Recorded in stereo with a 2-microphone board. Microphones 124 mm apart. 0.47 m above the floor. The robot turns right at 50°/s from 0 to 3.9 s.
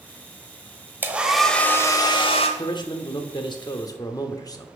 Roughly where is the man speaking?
Ahead left.